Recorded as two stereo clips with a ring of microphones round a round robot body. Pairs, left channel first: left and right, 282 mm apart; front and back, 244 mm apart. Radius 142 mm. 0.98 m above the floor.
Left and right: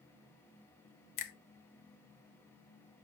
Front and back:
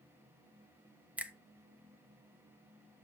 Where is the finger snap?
95° left, 1.1 m.